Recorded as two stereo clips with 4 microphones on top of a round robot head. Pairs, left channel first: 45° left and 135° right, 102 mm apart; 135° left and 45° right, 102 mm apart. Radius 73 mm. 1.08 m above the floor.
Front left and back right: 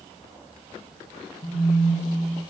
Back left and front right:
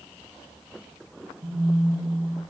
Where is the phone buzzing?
5° left, 6.5 m.